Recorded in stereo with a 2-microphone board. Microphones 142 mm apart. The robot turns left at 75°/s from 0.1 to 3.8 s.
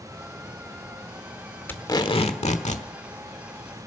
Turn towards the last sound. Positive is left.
turn(degrees=5)